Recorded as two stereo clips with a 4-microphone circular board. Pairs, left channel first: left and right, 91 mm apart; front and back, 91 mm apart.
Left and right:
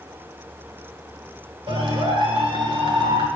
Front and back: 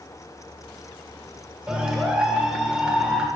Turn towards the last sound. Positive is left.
turn(degrees=-100)